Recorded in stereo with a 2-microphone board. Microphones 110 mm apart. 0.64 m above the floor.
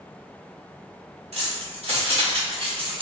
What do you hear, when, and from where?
1.3 s keys jangling: 70° right (ahead or behind), 1.7 m; by 3.0 s 50° right (ahead or behind), 0.9 m